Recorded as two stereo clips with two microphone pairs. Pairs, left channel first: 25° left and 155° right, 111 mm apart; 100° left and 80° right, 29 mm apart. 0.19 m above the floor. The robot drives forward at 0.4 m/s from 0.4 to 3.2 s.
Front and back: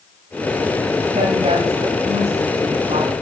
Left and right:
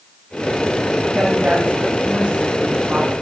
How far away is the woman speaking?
About 10 m.